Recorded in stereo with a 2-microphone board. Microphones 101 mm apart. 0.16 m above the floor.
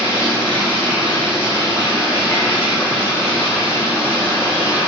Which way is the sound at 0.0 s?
25° left (ahead or behind).